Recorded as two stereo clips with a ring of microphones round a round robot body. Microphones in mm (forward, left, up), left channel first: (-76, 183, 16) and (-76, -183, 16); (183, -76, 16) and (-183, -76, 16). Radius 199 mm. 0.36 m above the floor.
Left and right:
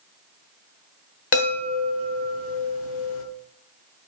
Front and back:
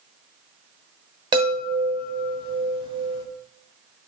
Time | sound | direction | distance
1.3 | a chime | 110° left | 1.1 m